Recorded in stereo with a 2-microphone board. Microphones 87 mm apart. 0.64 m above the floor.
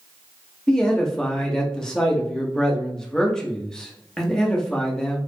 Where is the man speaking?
5° left (ahead or behind), 0.7 m.